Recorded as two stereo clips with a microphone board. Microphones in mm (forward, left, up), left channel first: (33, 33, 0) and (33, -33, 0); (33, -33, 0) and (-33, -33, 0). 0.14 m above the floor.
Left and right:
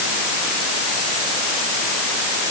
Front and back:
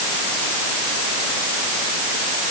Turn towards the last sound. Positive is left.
No sound to turn to.